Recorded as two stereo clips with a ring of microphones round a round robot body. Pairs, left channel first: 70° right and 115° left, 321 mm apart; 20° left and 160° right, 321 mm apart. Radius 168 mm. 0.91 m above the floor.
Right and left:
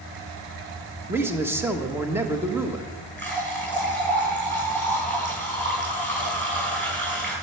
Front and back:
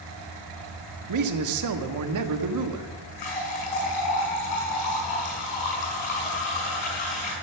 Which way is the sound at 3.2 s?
15° left.